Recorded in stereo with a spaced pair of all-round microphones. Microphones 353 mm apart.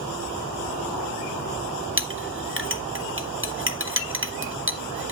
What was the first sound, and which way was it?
A clink, 35° right (ahead or behind).